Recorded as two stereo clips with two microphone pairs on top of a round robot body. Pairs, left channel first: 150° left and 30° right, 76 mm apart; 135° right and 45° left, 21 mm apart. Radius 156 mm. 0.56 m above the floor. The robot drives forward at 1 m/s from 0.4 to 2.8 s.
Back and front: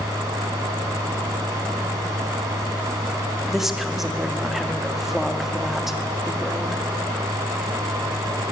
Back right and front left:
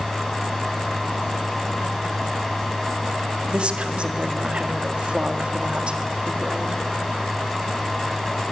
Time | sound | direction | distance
3.5 | a woman speaking | 65° left | 1.9 m